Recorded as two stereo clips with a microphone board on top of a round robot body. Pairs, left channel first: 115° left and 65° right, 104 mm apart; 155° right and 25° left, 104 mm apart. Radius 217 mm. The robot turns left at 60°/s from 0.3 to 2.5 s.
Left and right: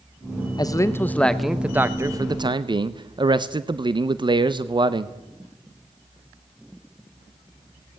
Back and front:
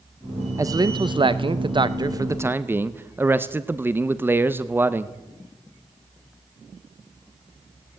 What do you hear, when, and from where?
0.6 s a man speaking: 75° left, 1.0 m; by 5.2 s 40° right, 1.0 m